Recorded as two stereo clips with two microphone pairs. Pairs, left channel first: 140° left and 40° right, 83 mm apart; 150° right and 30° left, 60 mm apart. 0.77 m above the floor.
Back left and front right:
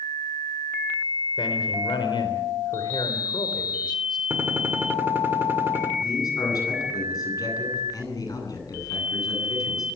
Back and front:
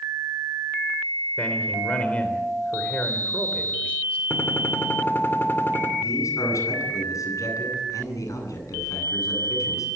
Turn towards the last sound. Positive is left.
turn(degrees=180)